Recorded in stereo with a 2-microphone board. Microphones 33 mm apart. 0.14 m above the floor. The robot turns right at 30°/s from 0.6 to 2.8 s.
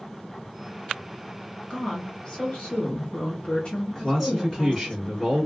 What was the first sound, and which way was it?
A woman speaking, 60° left.